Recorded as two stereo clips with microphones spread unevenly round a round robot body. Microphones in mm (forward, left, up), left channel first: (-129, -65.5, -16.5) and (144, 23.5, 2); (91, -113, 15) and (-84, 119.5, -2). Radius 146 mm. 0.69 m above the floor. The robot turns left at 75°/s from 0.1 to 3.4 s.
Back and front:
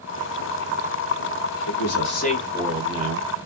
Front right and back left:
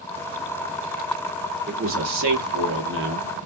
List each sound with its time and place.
1.7 s a man speaking: straight behind, 0.9 m; by 3.3 s 60° left, 0.9 m